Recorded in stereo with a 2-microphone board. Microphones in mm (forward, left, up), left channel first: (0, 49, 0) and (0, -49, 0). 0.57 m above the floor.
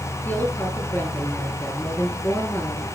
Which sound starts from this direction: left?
A woman speaking, at 0.2 s.